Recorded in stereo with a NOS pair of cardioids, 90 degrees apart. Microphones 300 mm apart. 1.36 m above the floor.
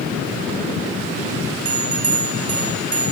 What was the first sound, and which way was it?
A bell, 50° right.